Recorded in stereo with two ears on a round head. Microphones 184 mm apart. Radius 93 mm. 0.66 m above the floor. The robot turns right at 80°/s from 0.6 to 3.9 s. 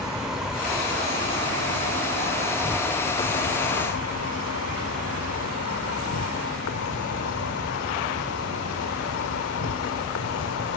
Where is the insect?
175° right; by 10.8 s 85° left.